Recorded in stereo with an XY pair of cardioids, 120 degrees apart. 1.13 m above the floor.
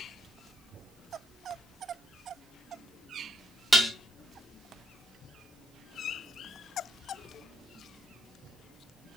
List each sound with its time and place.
3.7 s dishes clattering: 5° right, 0.9 m